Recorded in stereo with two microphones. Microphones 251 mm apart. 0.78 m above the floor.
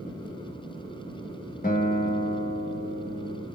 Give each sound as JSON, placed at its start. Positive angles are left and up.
{"t": 1.6, "sound": "a guitar", "side_deg": 35, "distance_m": 0.8}